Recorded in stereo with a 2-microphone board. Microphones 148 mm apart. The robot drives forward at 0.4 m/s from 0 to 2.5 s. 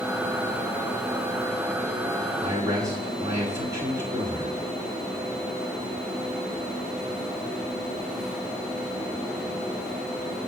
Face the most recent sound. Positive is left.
turn(degrees=-20)  # may be behind; listen again after turning